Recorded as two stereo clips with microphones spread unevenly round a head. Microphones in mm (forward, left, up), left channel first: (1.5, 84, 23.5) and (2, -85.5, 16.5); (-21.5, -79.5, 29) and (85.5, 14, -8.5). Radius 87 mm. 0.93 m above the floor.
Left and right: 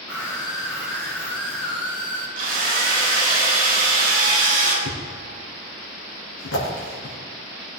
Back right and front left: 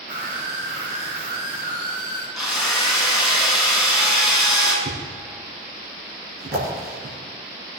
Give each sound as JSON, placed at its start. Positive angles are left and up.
{"t": 0.1, "sound": "a scream", "azimuth_deg": 15, "distance_m": 4.5}
{"t": 2.4, "sound": "a drill", "azimuth_deg": -50, "distance_m": 5.0}
{"t": 4.8, "sound": "a thud", "azimuth_deg": 80, "distance_m": 4.5}